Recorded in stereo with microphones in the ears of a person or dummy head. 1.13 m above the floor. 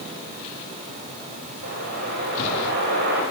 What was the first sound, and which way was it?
A whoosh, 70° right (ahead or behind).